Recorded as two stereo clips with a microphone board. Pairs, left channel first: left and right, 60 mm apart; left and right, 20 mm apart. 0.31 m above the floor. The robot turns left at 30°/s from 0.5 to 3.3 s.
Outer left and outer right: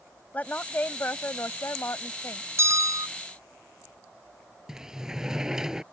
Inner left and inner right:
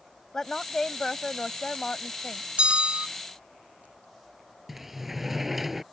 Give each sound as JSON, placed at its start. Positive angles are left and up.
{"t": 0.3, "sound": "a woman speaking", "azimuth_deg": 145}
{"t": 2.6, "sound": "a bell", "side_deg": -50}
{"t": 4.7, "sound": "a sliding door", "side_deg": -10}